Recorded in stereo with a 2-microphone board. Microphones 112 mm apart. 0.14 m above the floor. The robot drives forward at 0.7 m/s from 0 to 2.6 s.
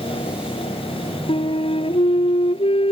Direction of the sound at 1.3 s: 60° left (ahead or behind).